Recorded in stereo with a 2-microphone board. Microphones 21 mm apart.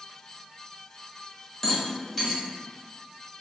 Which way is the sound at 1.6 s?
10° left (ahead or behind).